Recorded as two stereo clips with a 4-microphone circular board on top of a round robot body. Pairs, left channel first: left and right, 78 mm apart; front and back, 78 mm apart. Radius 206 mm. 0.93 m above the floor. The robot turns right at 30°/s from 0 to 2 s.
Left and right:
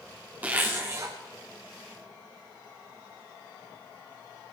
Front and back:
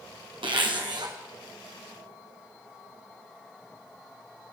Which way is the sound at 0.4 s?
165° right.